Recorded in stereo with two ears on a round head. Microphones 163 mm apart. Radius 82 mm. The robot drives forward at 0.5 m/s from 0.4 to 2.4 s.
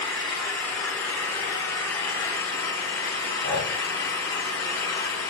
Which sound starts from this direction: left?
Breathing, at 3.4 s.